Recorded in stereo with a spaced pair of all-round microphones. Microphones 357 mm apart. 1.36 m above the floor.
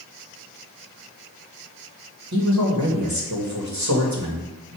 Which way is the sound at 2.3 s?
50° right (ahead or behind).